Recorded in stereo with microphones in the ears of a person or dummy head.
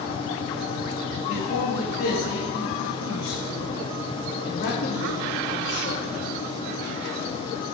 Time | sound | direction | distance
1.3 | a man speaking | 65° left (ahead or behind) | 4 m